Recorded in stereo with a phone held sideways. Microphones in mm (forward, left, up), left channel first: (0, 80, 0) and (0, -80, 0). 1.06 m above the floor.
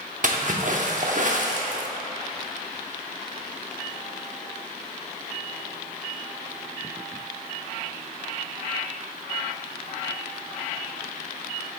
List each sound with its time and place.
0.2 s a splash: 55° right (ahead or behind), 0.9 m